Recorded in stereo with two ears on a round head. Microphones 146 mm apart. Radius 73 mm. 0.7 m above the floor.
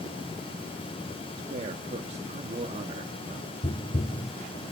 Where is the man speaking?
40° right (ahead or behind), 1.5 m.